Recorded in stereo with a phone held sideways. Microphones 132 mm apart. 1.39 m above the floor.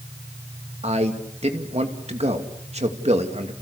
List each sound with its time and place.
0.8 s a man speaking: 55° right (ahead or behind), 2.5 m